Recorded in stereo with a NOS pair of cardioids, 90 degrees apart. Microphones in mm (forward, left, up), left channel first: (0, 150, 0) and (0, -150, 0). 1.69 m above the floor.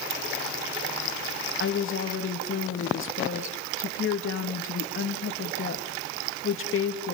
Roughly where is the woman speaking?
Ahead left.